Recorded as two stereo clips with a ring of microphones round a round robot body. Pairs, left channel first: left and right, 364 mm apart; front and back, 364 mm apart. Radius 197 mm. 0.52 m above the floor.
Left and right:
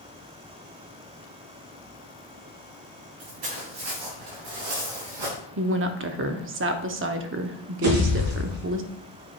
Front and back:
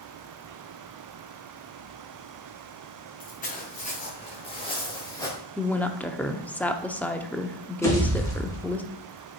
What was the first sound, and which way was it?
Footsteps, 70° right.